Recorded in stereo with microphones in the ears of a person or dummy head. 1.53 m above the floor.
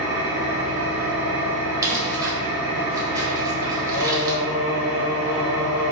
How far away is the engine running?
About 0.8 m.